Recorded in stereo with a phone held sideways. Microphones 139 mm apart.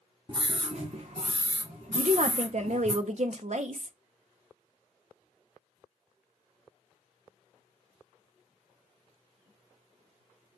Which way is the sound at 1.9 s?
55° right (ahead or behind).